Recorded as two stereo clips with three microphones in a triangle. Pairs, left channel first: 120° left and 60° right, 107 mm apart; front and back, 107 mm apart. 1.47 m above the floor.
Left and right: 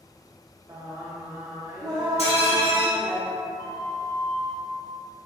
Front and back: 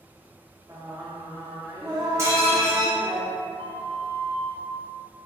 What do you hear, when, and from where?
0.7 s singing: 120° right, 0.7 m
2.2 s dishes clattering: 115° left, 1.5 m
3.6 s a flute: straight behind, 0.5 m